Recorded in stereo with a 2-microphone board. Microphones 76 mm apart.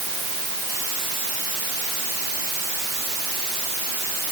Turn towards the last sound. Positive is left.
No sound to turn to.